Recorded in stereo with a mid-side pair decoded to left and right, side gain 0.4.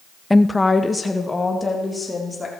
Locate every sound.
0.3 s a woman speaking: 15° left, 0.5 m; by 2.5 s 25° left, 4 m